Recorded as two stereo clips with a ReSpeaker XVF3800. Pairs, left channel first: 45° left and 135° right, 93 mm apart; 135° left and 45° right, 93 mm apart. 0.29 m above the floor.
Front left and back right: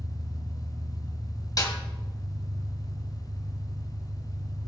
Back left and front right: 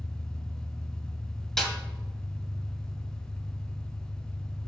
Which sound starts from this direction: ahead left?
A snare drum, at 1.6 s.